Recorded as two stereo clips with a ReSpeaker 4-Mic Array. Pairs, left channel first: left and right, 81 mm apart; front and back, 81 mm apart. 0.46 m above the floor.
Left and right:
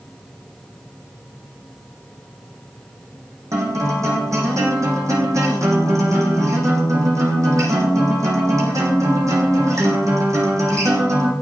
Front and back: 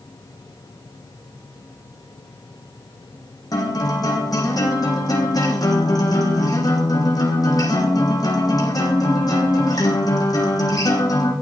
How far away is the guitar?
About 5.5 m.